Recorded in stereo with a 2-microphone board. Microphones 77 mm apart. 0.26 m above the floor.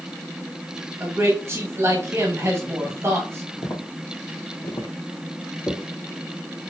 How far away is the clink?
I don't hear a clink.